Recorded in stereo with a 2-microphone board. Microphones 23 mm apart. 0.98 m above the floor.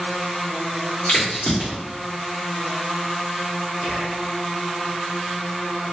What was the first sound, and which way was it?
A crack, 85° left.